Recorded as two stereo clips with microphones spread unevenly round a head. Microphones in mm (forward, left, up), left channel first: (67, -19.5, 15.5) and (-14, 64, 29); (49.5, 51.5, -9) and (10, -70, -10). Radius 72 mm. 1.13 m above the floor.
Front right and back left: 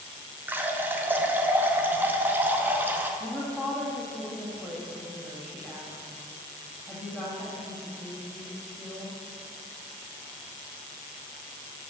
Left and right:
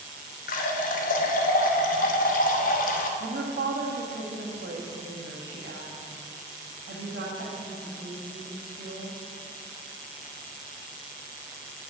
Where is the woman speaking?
130° right, 1.7 m.